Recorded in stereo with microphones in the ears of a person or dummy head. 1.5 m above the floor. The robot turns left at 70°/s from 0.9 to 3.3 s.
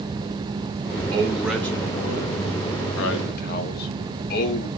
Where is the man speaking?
150° right, 0.9 m; by 4.7 s 55° left, 0.9 m.